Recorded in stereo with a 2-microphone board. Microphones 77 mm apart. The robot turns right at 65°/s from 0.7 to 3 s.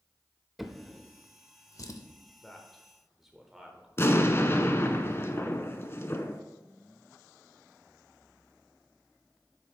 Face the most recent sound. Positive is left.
turn(degrees=35)  # may be behind; listen again after turning